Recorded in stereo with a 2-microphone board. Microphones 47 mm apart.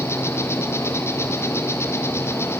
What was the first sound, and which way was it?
An insect, 70° left (ahead or behind).